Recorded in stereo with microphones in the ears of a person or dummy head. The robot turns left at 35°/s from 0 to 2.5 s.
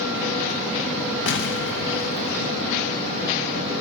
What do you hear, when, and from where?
1.3 s an explosion: 95° left, 0.9 m; by 2.5 s 50° left, 0.9 m